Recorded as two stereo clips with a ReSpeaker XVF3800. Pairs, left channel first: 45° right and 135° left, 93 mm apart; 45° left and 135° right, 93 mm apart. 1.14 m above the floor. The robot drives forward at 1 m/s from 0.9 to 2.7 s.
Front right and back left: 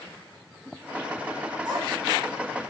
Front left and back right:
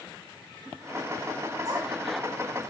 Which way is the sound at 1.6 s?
175° left.